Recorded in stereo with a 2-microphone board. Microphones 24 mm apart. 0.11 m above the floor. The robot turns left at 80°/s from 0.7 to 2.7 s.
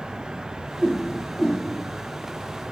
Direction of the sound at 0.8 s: 45° right (ahead or behind).